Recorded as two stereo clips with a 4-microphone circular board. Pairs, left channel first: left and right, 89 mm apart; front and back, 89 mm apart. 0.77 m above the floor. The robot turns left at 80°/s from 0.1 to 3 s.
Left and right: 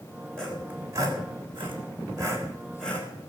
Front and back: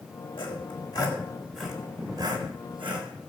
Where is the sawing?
10° left, 3.5 m; by 3.3 s 160° left, 3.5 m.